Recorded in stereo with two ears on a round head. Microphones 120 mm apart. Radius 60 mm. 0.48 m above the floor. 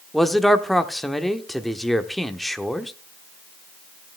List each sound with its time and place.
0.1 s a man speaking: centre (ahead or behind), 0.9 m